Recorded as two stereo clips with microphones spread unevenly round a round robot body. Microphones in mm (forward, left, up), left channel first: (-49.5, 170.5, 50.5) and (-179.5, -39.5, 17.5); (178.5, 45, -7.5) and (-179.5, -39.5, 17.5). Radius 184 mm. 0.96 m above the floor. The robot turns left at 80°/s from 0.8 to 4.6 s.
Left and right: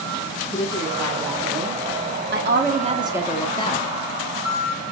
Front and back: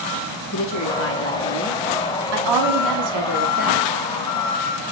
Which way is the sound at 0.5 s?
5° right.